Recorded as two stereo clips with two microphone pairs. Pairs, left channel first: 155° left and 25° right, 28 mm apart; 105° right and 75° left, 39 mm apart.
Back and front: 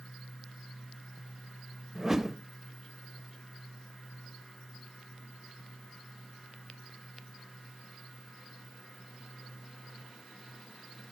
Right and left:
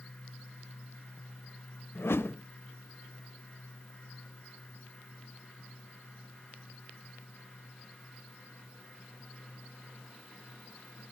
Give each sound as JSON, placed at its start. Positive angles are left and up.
{"t": 1.9, "sound": "a whoosh", "azimuth_deg": -100, "distance_m": 0.8}